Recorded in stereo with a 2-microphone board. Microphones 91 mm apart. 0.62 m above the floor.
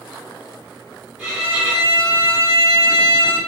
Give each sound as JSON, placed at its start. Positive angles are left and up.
{"t": 1.2, "sound": "a violin", "side_deg": -10, "distance_m": 1.6}